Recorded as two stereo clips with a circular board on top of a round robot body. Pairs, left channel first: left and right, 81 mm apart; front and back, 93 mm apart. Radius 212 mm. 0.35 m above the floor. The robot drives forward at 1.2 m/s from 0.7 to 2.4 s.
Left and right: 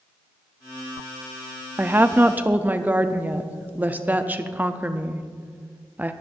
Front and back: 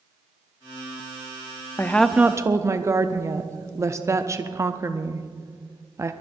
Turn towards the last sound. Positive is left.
turn(degrees=-145)